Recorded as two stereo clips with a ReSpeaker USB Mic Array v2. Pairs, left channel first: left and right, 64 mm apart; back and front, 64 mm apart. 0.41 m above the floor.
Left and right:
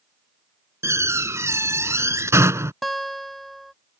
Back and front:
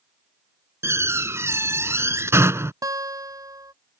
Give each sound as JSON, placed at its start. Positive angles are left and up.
{"t": 0.8, "sound": "a door slam", "azimuth_deg": -45}
{"t": 2.8, "sound": "a guitar", "azimuth_deg": 5}